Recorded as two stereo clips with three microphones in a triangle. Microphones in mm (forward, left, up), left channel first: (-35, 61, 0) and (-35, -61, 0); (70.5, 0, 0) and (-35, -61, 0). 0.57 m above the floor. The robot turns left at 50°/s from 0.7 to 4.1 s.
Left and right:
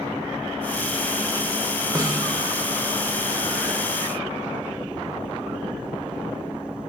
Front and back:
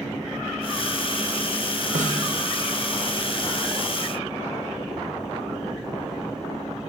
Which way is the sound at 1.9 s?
150° right.